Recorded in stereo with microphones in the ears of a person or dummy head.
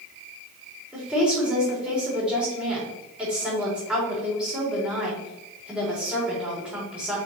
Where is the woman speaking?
5° right (ahead or behind), 3 m.